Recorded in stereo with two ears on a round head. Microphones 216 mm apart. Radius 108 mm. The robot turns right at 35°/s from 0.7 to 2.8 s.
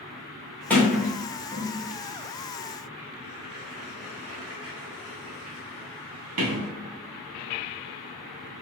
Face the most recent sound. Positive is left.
turn(degrees=-65)  # may be behind; listen again after turning